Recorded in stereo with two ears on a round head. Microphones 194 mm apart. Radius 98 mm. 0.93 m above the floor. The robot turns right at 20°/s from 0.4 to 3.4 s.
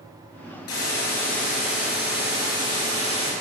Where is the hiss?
100° left, 7.5 m; by 3.3 s 155° left, 7.5 m.